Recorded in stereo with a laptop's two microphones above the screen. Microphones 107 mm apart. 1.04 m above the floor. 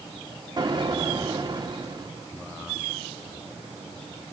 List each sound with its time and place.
0.6 s an explosion: 40° right (ahead or behind), 2.5 m